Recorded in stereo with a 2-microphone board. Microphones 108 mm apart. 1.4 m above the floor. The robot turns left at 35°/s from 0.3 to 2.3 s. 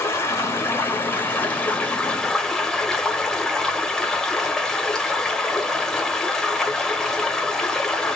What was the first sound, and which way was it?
Running water, 25° left (ahead or behind).